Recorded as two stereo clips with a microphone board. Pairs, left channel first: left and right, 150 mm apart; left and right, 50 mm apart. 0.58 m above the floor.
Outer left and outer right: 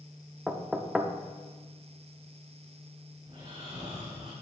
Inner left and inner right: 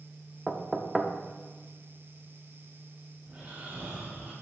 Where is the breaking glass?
I don't hear breaking glass.